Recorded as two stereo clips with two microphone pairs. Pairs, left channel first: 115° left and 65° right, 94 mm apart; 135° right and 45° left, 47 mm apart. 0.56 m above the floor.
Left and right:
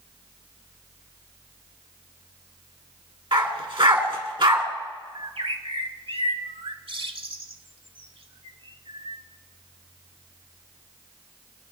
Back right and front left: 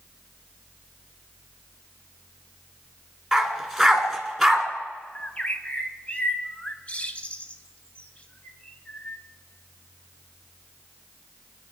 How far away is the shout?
No shout in this recording.